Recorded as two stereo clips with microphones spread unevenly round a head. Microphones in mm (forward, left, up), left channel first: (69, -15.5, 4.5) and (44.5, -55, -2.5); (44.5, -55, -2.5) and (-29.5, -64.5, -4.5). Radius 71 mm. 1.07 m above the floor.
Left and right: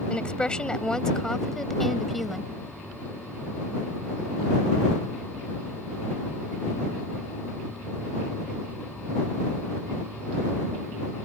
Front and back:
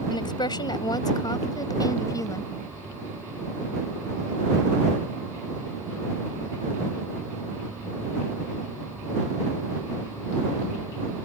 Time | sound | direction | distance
0.1 | a woman speaking | 10° right | ?